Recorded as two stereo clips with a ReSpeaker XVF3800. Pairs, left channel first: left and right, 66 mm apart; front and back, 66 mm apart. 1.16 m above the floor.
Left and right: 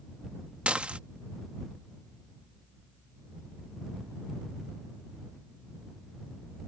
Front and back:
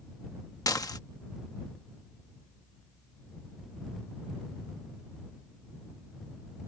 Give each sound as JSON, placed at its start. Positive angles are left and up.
{"t": 0.7, "sound": "dishes clattering", "azimuth_deg": -20}